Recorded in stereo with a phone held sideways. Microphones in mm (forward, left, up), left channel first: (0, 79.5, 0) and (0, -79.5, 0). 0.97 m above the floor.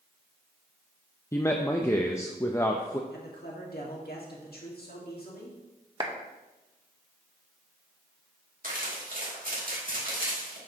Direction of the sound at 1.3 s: 15° left (ahead or behind).